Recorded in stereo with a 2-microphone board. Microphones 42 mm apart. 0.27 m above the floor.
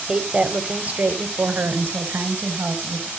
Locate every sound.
0.1 s a woman speaking: 20° right (ahead or behind), 1.2 m; by 3.1 s 55° right (ahead or behind), 2.5 m